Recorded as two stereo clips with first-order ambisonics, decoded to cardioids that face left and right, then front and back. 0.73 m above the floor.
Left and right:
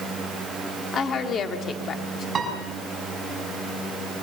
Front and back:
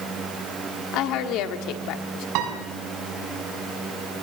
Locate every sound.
0.9 s a woman speaking: 30° left, 1.6 m
2.4 s a piano: 160° right, 5 m